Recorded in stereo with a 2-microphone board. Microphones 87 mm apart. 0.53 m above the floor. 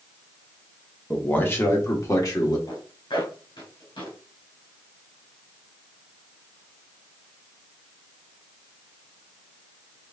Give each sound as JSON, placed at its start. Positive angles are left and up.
{"t": 1.1, "sound": "a man speaking", "side_deg": 15, "distance_m": 1.0}
{"t": 2.7, "sound": "a zipper", "side_deg": 75, "distance_m": 2.5}